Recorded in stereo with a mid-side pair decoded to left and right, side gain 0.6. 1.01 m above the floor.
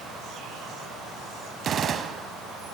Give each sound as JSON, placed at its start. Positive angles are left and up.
{"t": 1.6, "sound": "a gunshot", "azimuth_deg": -40, "distance_m": 3.0}